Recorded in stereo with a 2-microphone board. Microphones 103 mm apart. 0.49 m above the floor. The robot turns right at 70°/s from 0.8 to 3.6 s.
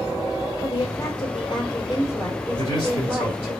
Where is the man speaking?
45° left, 2 m; by 3.5 s 110° left, 2 m.